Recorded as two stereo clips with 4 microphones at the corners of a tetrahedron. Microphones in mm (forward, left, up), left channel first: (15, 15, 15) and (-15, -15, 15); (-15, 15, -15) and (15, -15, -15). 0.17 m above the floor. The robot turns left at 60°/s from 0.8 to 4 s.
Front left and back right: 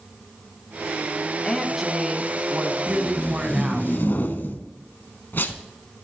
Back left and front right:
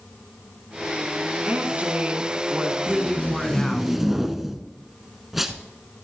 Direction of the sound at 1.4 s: 35° right.